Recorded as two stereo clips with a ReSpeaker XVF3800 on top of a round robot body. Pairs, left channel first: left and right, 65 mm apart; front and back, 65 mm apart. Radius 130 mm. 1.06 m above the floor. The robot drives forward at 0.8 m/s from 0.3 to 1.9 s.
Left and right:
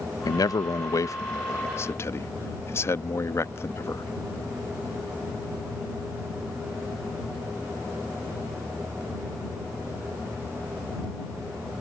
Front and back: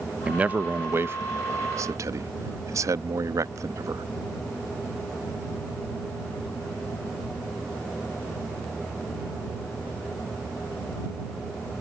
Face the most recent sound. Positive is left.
turn(degrees=140)